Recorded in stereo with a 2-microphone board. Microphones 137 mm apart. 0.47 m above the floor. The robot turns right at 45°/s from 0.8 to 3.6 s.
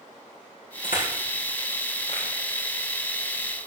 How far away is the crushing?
About 5.5 m.